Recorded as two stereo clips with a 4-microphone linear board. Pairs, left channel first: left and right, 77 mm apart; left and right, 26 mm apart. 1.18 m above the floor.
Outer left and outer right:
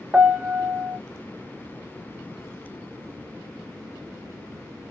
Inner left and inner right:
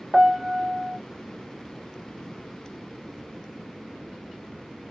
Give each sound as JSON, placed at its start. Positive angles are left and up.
{"t": 0.1, "sound": "a piano", "side_deg": -15, "distance_m": 0.5}